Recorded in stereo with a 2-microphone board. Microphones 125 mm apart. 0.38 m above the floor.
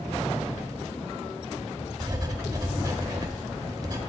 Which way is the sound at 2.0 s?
30° right (ahead or behind).